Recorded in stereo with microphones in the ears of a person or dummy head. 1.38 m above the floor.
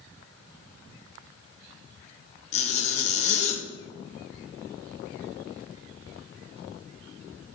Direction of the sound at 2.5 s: 35° left (ahead or behind).